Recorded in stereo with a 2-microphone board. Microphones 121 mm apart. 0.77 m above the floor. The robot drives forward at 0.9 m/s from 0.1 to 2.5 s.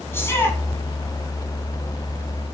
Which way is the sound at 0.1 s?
20° left (ahead or behind).